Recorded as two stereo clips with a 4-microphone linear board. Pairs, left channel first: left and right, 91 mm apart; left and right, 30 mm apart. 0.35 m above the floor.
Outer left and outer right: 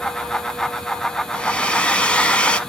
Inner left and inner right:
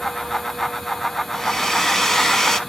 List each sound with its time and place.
1.3 s a hair dryer: 15° left (ahead or behind), 0.6 m